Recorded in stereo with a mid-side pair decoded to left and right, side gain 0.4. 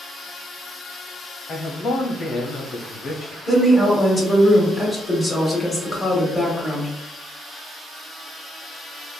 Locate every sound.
1.5 s a man speaking: 65° left, 0.9 m
3.5 s a woman speaking: 25° left, 1.6 m